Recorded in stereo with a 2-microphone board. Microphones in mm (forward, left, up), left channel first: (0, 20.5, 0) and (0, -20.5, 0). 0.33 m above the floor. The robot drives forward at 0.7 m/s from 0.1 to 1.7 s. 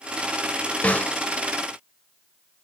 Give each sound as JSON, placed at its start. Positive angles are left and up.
{"t": 0.8, "sound": "a snare drum", "side_deg": 35, "distance_m": 1.0}